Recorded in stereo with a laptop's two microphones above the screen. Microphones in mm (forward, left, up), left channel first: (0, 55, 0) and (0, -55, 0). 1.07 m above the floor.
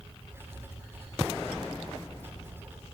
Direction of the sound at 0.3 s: 20° right (ahead or behind).